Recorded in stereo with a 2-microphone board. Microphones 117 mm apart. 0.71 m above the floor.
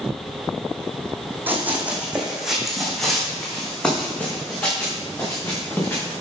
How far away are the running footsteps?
About 2 m.